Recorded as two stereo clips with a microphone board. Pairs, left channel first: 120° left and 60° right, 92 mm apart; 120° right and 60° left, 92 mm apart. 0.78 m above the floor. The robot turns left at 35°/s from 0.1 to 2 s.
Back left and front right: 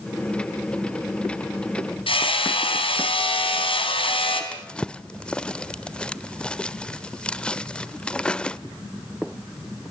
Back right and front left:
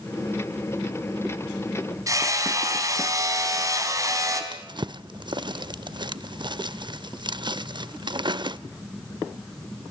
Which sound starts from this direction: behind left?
Hammering, at 2.1 s.